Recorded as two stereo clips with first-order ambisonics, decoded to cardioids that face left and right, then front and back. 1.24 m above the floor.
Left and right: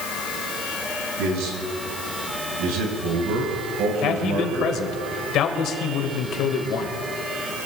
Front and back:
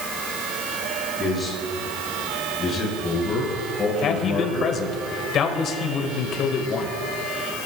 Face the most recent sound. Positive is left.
turn(degrees=50)